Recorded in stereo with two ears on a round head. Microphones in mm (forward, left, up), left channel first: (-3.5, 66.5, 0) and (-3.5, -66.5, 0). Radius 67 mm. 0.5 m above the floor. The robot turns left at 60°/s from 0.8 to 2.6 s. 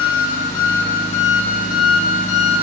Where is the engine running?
150° left, 2 m; by 2.6 s 45° left, 2 m.